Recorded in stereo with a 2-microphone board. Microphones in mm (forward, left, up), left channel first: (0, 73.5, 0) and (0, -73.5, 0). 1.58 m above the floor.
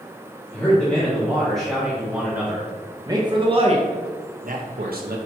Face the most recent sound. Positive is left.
turn(degrees=-80)